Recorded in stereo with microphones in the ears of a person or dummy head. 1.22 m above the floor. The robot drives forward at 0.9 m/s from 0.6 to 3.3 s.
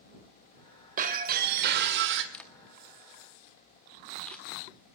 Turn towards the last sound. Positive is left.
turn(degrees=0)  # may be behind; listen again after turning